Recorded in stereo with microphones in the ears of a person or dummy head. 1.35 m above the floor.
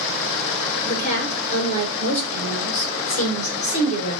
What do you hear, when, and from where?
0.8 s a woman speaking: 40° left (ahead or behind), 5 m